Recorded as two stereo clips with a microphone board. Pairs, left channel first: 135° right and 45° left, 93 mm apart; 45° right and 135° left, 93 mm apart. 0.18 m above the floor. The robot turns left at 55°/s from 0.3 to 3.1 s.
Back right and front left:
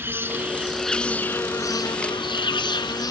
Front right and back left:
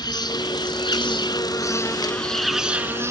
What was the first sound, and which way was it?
An insect, 15° right.